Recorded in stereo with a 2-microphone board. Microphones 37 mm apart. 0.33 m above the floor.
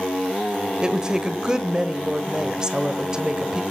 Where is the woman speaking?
25° right (ahead or behind), 1.2 m.